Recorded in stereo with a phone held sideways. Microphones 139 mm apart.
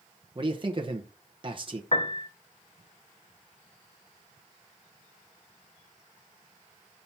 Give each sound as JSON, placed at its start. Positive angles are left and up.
{"t": 0.3, "sound": "a man speaking", "side_deg": -35, "distance_m": 0.9}
{"t": 1.9, "sound": "a piano", "side_deg": 45, "distance_m": 0.9}